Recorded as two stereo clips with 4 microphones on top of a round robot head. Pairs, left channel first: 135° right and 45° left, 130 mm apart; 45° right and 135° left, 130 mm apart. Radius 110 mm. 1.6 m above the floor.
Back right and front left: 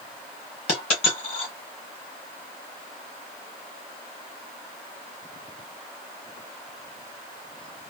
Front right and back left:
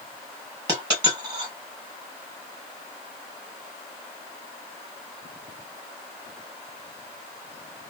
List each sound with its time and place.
0.7 s a dropped coin: 170° right, 1.5 m